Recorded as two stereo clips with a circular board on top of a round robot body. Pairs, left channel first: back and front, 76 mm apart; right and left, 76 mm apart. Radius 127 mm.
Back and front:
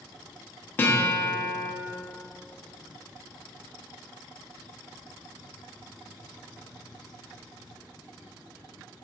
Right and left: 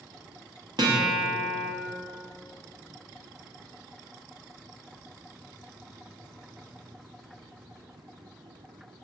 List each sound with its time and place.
0.8 s a guitar: 115° left, 1.2 m